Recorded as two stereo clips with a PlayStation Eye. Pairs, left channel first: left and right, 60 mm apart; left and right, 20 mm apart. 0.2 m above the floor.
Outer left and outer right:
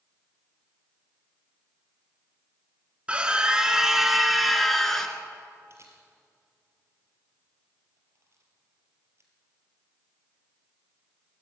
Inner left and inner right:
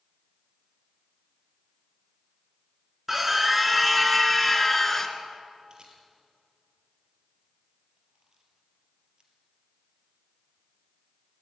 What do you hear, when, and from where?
3.1 s a scream: 15° right (ahead or behind), 2.5 m; by 5.2 s 10° left (ahead or behind), 2.5 m
5.7 s a camera shutter: 45° right (ahead or behind), 4 m